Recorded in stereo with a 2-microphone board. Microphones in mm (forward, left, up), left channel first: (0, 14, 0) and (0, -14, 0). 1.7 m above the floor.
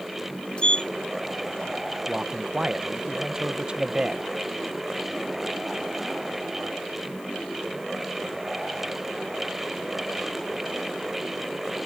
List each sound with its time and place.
0.6 s a sliding door: 35° left (ahead or behind)
2.1 s a man speaking: 30° right (ahead or behind)